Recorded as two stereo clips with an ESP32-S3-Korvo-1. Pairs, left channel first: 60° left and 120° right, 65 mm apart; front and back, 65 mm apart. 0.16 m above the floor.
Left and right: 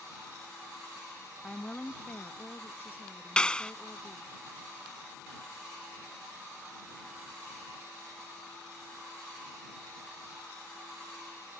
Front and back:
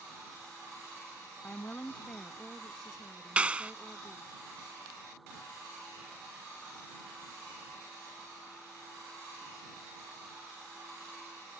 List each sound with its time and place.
1.4 s a woman speaking: straight ahead; by 4.3 s 115° left
3.4 s a clap: 125° left